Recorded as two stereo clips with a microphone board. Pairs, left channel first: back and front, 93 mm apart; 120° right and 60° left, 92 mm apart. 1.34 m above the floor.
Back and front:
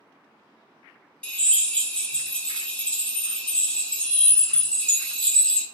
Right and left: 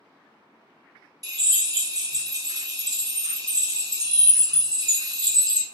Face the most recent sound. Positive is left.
turn(degrees=105)